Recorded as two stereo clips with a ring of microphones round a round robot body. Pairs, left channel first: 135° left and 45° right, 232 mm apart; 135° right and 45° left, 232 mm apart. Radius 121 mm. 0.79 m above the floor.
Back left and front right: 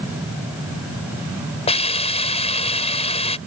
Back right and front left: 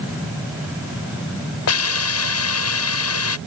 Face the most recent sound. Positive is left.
turn(degrees=-160)